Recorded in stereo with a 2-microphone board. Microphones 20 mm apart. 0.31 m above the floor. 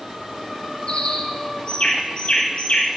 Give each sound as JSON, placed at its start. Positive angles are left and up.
{"t": 0.9, "sound": "a bird", "side_deg": 55, "distance_m": 1.2}